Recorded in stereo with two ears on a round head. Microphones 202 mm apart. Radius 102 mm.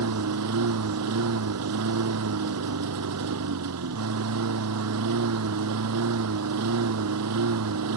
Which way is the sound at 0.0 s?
85° right.